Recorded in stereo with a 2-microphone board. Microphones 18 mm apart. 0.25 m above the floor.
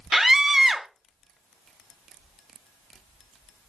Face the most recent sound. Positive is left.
turn(degrees=-15)  # may be behind; listen again after turning